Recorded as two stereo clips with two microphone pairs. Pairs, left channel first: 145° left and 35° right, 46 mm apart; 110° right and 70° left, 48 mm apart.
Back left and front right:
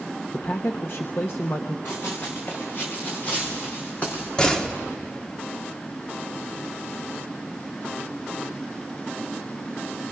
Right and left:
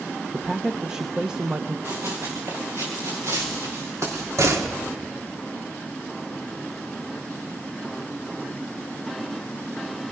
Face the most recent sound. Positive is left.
turn(degrees=70)